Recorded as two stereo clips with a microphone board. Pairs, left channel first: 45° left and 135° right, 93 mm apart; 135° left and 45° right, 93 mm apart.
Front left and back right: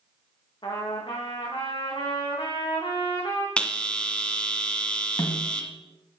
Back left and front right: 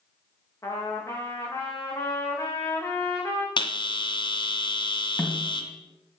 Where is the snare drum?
70° left, 1.9 m.